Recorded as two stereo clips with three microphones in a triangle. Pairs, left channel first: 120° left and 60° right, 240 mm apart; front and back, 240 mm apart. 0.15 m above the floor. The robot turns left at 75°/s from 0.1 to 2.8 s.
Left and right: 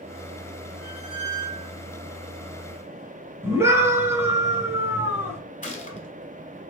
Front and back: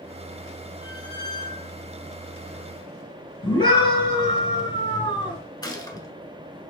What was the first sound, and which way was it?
A squeak, 30° left.